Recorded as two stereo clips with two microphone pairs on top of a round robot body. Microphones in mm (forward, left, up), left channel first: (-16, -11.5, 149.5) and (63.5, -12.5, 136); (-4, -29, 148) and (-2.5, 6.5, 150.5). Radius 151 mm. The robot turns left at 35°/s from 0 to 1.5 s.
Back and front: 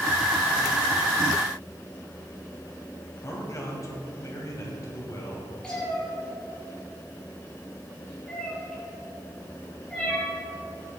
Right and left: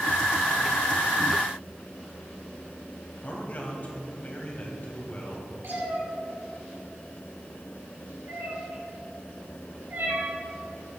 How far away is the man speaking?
About 3 m.